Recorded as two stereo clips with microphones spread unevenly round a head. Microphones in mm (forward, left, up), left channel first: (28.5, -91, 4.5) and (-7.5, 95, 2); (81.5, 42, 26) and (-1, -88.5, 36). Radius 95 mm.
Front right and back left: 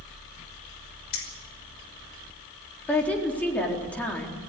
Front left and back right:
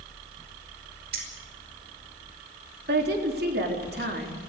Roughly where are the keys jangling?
Right.